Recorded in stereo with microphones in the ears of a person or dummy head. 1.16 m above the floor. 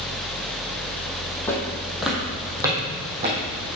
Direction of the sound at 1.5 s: 15° left (ahead or behind).